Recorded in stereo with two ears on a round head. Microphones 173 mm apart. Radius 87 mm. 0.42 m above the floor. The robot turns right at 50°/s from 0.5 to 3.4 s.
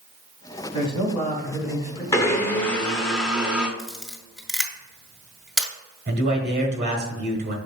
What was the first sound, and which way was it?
A man speaking, 145° left.